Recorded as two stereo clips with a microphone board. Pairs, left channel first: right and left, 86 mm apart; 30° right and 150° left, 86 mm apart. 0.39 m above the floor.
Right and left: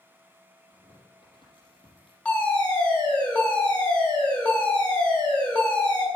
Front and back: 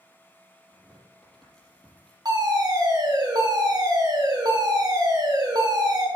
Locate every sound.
0.7 s tearing paper: 115° right, 5.5 m
2.2 s a fire alarm: 165° right, 5.5 m